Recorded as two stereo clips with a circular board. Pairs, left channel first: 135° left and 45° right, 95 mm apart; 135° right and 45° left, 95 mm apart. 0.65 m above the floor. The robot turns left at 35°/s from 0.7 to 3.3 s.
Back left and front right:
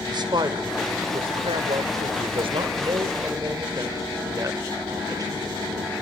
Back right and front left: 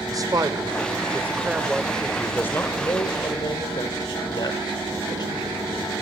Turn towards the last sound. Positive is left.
turn(degrees=-95)